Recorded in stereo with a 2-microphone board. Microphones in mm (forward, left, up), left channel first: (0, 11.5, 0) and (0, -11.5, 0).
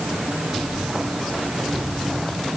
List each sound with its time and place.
Only background noise.